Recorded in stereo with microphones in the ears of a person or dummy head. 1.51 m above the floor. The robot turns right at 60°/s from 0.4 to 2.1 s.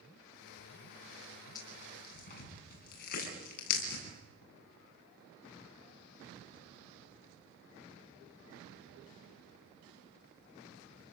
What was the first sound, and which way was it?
Tearing paper, 25° left (ahead or behind).